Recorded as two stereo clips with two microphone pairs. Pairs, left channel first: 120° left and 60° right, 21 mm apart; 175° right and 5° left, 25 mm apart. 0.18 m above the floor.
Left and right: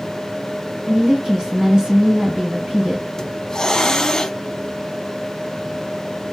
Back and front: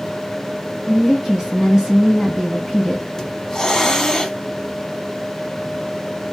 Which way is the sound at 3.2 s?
155° left.